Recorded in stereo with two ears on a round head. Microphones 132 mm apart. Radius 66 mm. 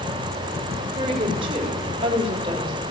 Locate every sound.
0.9 s a woman speaking: 35° right (ahead or behind), 3 m